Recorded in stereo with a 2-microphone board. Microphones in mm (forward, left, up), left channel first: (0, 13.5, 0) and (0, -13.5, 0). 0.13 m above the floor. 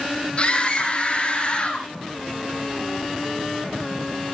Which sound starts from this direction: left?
A scream, at 0.4 s.